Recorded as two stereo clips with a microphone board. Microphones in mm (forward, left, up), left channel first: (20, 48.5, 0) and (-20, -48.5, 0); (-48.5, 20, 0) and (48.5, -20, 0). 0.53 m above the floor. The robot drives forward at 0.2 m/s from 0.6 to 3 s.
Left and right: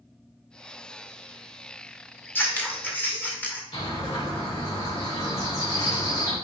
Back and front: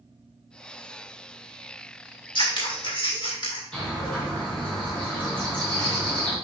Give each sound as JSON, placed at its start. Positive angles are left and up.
{"t": 2.4, "sound": "scissors", "azimuth_deg": 135, "distance_m": 1.6}
{"t": 3.7, "sound": "a bird", "azimuth_deg": 80, "distance_m": 4.0}